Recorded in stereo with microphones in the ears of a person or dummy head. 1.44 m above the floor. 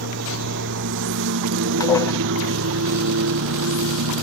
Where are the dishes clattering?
20° left (ahead or behind).